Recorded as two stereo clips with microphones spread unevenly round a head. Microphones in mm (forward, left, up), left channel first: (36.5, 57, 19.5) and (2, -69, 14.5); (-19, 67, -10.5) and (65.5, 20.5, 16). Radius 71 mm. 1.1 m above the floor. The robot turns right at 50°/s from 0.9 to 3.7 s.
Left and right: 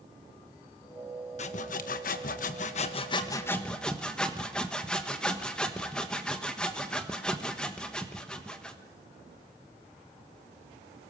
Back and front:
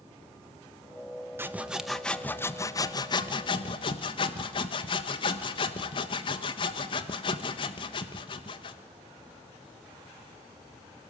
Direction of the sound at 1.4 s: 45° left.